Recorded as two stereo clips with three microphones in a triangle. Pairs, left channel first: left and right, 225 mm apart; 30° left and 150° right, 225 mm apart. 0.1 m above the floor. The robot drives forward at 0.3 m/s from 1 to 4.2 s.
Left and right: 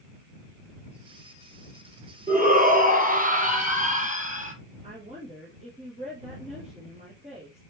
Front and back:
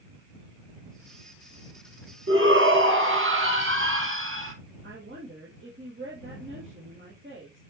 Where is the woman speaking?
145° right, 3 m.